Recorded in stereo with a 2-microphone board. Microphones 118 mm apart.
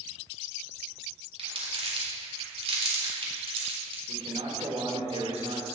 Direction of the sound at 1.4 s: 55° right (ahead or behind).